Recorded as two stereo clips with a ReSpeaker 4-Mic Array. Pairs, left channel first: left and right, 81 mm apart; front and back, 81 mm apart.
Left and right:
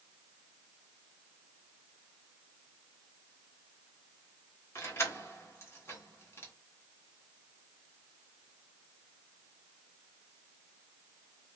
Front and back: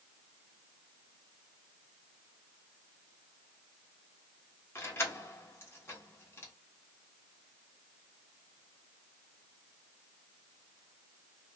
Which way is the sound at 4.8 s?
50° left.